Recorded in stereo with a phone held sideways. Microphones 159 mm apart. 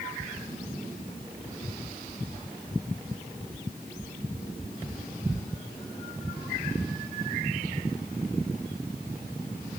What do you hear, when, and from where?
Only background noise.